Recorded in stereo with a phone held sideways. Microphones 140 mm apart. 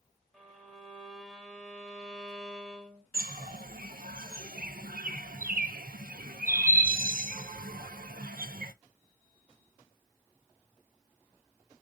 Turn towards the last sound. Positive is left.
turn(degrees=-75)  # may be behind; listen again after turning